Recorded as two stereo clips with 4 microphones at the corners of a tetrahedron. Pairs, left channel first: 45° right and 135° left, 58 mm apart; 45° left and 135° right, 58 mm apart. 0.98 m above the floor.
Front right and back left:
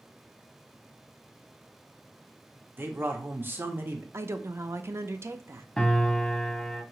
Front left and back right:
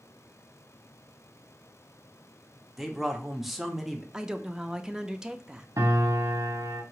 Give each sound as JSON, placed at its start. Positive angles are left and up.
{"t": 2.8, "sound": "a man speaking", "azimuth_deg": 140, "distance_m": 0.8}
{"t": 4.1, "sound": "a woman speaking", "azimuth_deg": 150, "distance_m": 0.5}
{"t": 5.8, "sound": "a piano", "azimuth_deg": -125, "distance_m": 0.9}